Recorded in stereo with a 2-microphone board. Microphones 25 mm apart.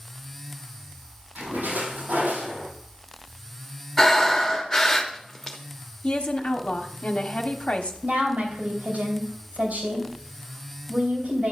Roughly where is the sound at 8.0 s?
Right.